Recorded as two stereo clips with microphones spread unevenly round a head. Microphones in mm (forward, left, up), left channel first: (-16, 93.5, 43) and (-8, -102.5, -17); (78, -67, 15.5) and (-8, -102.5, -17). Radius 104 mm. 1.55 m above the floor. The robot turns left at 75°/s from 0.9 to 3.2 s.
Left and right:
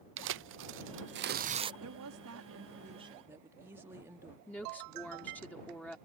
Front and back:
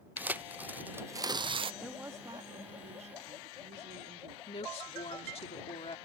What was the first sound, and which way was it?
Tearing paper, 90° right.